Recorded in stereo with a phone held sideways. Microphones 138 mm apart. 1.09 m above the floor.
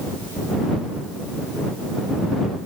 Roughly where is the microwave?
I don't hear a microwave.